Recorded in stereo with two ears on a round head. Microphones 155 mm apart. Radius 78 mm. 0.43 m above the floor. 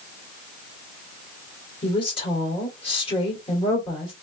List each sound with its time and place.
1.8 s a woman speaking: 30° left (ahead or behind), 2.0 m